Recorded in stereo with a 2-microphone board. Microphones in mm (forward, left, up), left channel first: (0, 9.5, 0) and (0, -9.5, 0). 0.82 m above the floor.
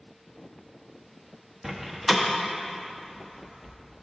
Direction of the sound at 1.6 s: 15° right (ahead or behind).